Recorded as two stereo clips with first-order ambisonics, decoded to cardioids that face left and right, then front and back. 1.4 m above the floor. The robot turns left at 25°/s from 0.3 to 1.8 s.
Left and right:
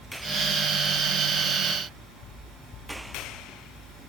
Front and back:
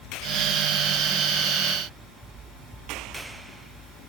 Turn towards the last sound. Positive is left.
No sound to turn to.